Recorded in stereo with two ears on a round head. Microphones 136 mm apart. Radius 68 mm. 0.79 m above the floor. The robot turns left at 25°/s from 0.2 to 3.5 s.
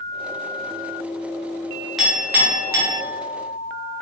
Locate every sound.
2.0 s a clink: centre (ahead or behind), 0.9 m; by 3.0 s 25° right (ahead or behind), 0.9 m